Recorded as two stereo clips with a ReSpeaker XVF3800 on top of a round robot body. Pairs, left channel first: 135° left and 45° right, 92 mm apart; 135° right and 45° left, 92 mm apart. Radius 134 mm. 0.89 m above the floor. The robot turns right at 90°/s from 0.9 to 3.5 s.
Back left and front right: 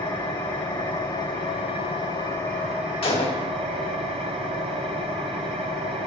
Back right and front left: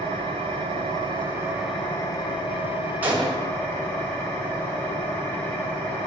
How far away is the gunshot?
About 2.5 m.